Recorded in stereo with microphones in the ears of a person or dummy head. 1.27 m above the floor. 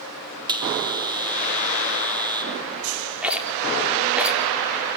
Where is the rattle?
5° right (ahead or behind), 3.5 m.